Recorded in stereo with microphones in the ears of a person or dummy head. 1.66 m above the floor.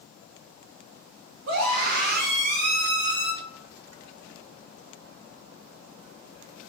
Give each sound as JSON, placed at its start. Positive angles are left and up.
{"t": 1.5, "sound": "a scream", "side_deg": -70, "distance_m": 1.5}